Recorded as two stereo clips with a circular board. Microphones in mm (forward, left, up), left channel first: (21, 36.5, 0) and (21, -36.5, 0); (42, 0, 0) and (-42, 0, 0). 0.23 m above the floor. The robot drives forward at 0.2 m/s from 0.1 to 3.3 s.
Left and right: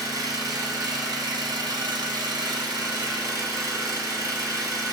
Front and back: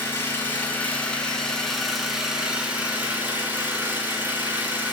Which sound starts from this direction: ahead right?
An engine running, at 0.0 s.